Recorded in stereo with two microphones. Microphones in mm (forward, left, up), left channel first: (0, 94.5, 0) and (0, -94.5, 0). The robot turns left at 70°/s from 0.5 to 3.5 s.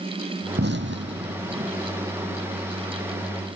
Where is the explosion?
65° right (ahead or behind); by 1.7 s 35° right (ahead or behind).